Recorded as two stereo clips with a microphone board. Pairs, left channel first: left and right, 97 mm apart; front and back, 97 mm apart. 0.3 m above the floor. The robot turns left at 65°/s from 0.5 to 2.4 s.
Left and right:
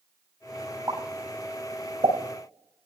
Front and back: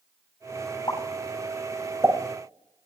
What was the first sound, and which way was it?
A pop, 40° right.